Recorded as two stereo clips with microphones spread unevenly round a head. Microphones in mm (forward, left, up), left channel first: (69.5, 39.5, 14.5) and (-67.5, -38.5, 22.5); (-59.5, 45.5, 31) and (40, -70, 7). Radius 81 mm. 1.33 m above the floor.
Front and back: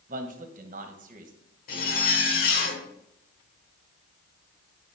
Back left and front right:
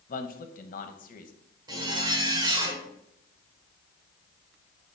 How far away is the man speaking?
About 1.1 m.